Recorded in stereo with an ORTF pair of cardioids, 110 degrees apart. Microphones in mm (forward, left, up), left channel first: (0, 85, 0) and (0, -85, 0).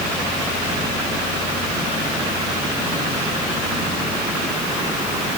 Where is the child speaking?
No child speaking in this recording.